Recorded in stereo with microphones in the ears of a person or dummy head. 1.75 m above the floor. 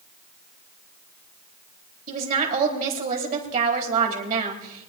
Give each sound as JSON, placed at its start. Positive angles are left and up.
{"t": 2.1, "sound": "a woman speaking", "side_deg": -45, "distance_m": 4.0}